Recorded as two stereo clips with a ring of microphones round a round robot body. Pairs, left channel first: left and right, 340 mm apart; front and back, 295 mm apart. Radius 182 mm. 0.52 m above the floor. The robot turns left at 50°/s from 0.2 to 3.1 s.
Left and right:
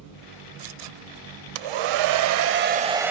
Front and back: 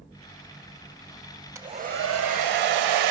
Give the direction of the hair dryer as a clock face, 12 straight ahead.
3 o'clock.